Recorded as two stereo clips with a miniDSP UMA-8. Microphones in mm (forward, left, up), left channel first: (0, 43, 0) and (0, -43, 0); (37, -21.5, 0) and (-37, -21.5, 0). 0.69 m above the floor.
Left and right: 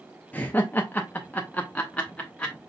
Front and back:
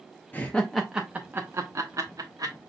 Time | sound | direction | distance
0.3 | laughter | 40° left | 0.6 m